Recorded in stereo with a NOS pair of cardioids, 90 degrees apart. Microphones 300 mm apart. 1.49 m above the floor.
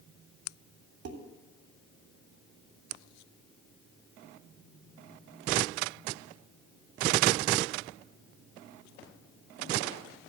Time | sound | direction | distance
1.1 | dishes clattering | 60° right | 2.5 m